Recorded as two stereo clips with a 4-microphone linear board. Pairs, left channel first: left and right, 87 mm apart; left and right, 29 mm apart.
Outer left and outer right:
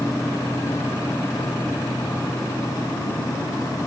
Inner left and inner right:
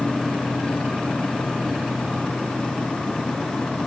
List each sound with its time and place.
Only background noise.